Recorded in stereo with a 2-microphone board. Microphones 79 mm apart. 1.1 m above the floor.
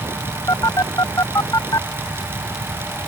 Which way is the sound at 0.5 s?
45° left (ahead or behind).